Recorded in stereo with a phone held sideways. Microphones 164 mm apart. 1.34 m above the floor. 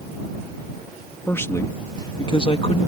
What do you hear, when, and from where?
1.3 s a man speaking: 15° left (ahead or behind); by 2.9 s 40° left (ahead or behind)